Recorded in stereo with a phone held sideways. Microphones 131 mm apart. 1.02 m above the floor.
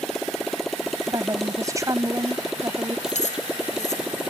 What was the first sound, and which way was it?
A motorcycle, 5° left (ahead or behind).